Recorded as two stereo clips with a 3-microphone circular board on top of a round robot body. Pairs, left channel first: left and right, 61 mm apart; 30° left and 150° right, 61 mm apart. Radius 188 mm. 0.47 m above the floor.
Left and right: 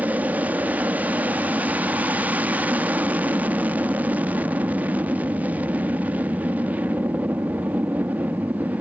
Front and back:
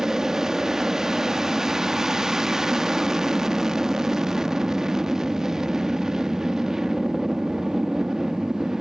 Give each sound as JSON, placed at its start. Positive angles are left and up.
{"t": 0.0, "sound": "an aircraft", "azimuth_deg": -80}